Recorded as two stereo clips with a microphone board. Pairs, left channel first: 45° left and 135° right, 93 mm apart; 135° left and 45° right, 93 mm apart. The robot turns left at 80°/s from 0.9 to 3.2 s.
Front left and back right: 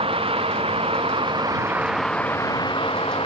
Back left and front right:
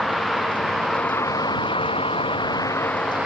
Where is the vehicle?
135° right; by 3.3 s 40° left.